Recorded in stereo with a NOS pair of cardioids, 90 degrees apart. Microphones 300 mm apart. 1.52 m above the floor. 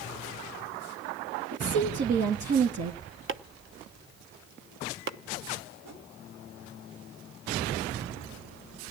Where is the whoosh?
65° right, 7.5 m.